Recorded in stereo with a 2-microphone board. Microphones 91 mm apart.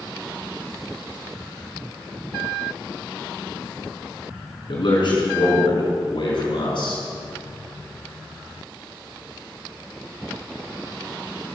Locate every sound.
4.7 s a man speaking: 60° left (ahead or behind), 4.5 m; by 7.0 s 65° left (ahead or behind), 3.5 m